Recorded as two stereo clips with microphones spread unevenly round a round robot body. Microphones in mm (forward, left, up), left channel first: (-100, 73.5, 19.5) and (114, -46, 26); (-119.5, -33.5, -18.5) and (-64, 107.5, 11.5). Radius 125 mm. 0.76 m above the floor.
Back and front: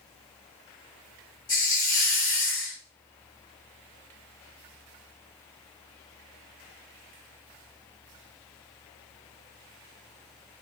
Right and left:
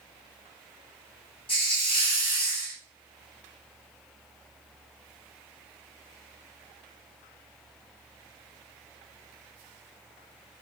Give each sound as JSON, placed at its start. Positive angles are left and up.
{"t": 1.5, "sound": "a hiss", "azimuth_deg": -155, "distance_m": 2.0}